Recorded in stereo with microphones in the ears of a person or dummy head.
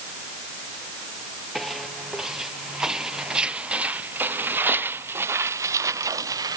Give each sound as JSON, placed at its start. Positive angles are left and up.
{"t": 1.6, "sound": "footsteps", "side_deg": -5}